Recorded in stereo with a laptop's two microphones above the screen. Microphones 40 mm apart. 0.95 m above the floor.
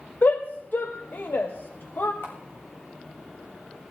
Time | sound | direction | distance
0.2 | a shout | 55° left (ahead or behind) | 1.1 m
2.2 | a camera shutter | 75° left (ahead or behind) | 6.5 m